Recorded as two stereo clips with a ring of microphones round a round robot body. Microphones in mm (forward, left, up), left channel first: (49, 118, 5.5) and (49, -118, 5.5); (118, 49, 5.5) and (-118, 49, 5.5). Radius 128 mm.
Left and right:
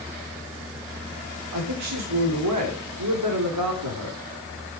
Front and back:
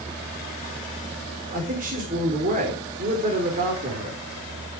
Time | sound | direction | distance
1.5 | a man speaking | 120° right | 3.5 m